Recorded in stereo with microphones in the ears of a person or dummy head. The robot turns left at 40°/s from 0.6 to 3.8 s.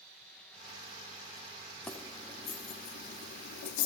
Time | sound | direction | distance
1.9 | keys jangling | 5° left (ahead or behind) | 1.9 m